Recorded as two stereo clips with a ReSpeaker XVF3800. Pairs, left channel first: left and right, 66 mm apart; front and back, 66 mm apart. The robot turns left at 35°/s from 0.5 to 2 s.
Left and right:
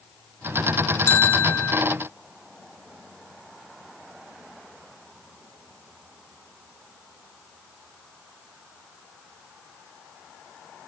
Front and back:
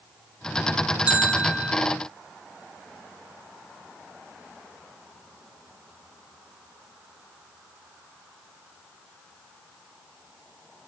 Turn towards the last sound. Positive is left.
turn(degrees=85)